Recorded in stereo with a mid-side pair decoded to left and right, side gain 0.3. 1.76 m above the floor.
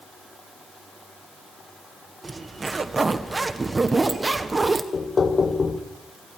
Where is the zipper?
35° right, 1.5 m.